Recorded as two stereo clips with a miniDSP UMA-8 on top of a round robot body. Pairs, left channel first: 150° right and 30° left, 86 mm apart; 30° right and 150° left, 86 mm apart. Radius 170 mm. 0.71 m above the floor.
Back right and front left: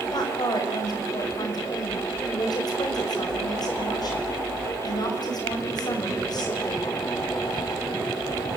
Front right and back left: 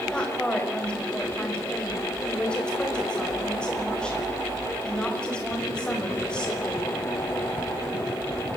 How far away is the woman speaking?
About 5.5 m.